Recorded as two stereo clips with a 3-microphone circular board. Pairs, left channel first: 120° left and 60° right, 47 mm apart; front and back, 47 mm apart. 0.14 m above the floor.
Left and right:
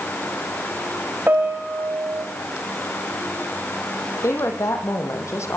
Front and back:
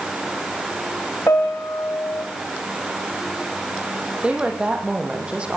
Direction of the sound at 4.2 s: 110° left.